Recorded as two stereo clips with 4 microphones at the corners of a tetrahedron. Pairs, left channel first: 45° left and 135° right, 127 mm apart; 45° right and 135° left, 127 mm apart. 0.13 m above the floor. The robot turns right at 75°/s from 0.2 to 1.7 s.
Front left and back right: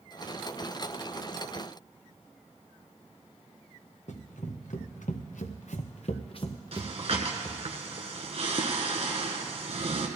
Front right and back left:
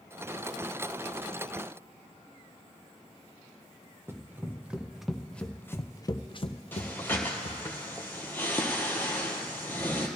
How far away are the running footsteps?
About 1.4 m.